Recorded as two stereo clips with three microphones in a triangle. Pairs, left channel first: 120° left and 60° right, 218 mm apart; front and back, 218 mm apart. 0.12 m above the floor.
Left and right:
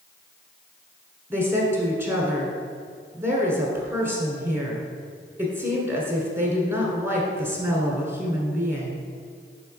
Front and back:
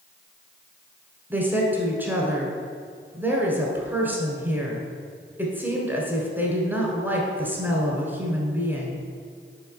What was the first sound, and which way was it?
A woman speaking, 115° right.